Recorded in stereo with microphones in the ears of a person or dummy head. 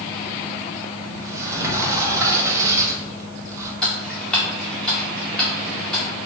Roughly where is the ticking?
Centre.